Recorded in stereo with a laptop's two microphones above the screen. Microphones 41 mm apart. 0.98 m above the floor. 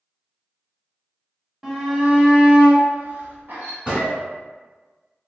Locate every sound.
1.6 s a shout: 5° right (ahead or behind), 1.1 m; by 3.8 s 55° right (ahead or behind), 0.9 m
3.9 s a gunshot: 25° right (ahead or behind), 1.2 m